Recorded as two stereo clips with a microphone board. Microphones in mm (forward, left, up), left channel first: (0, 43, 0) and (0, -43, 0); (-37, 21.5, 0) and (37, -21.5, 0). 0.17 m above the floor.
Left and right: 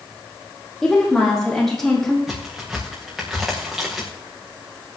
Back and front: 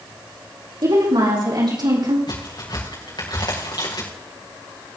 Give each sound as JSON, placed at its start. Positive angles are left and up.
{"t": 0.8, "sound": "a woman speaking", "azimuth_deg": 5, "distance_m": 6.5}
{"t": 2.3, "sound": "a crack", "azimuth_deg": -175, "distance_m": 5.5}